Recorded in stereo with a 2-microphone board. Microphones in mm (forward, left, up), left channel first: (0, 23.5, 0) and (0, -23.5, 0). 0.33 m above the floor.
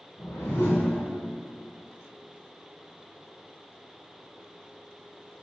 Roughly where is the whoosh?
Left.